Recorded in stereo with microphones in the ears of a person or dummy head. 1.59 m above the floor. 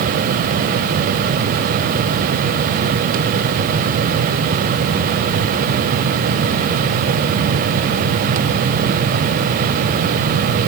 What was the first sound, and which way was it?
Only background noise.